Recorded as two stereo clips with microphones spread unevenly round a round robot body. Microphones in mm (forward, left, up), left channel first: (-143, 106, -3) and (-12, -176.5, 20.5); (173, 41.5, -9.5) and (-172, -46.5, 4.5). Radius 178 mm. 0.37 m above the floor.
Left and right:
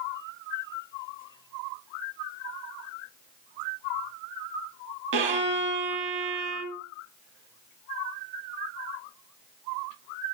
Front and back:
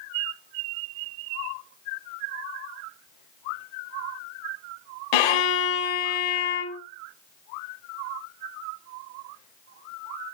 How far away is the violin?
About 0.9 m.